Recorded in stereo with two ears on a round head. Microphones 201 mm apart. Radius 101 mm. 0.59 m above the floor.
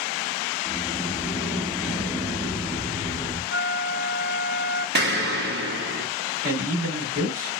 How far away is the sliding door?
About 0.6 m.